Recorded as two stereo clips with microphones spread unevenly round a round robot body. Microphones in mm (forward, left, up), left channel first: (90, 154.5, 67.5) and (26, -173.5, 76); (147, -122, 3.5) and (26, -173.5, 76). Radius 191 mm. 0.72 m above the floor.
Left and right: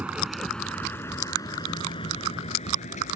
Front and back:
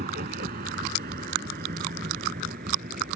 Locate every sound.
0.0 s a vehicle: 170° left; by 3.1 s 150° left